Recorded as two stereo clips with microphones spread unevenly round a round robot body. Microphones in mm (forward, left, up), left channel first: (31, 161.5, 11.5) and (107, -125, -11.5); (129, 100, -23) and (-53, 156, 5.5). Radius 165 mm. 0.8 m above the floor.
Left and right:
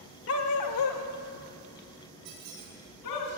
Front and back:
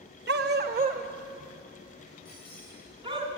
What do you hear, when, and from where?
0.3 s a dog barking: 150° left, 0.7 m; by 3.2 s 100° left, 3 m
2.2 s a squeak: 75° right, 4.5 m